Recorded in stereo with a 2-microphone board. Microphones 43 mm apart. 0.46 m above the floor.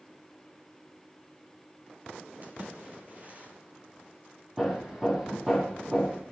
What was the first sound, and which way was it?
A splash, 35° right (ahead or behind).